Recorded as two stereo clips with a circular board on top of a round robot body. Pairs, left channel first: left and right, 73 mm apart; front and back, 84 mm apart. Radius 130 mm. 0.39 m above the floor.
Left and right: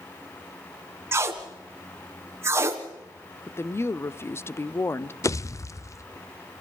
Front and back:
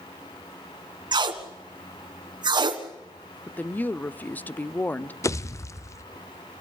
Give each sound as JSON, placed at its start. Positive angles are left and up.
{"t": 1.1, "sound": "tape being pulled", "azimuth_deg": -145, "distance_m": 1.4}
{"t": 3.5, "sound": "a woman speaking", "azimuth_deg": 60, "distance_m": 0.9}
{"t": 5.2, "sound": "a pop", "azimuth_deg": 50, "distance_m": 1.1}